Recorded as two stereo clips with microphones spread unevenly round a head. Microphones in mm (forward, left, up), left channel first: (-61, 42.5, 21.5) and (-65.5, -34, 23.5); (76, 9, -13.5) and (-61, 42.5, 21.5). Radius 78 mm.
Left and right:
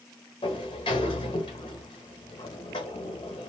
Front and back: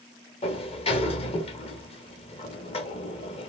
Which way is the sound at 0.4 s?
35° left.